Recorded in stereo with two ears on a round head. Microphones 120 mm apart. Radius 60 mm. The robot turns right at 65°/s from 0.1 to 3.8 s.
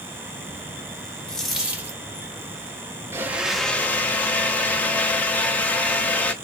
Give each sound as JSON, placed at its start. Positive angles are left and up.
{"t": 1.3, "sound": "a dropped coin", "azimuth_deg": 170, "distance_m": 0.7}
{"t": 3.1, "sound": "a blender", "azimuth_deg": -25, "distance_m": 0.5}